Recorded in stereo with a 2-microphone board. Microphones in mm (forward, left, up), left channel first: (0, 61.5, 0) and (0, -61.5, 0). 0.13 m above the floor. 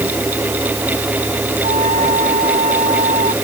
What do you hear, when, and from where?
1.6 s a flute: 80° right